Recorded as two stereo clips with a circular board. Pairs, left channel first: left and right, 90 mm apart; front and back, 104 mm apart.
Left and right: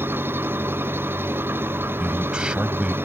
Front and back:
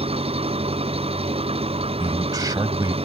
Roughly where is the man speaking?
Behind.